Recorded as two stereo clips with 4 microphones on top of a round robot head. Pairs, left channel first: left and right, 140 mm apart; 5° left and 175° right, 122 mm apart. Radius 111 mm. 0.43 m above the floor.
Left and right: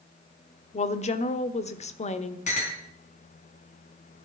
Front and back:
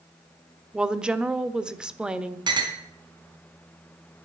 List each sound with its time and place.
0.7 s a woman speaking: 105° left, 1.1 m
2.5 s a clink: 130° left, 3 m